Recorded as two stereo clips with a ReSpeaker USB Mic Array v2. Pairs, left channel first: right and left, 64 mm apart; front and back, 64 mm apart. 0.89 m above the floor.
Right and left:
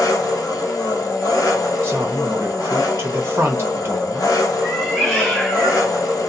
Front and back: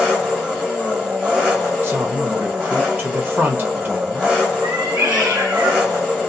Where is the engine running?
100° right, 1.2 m.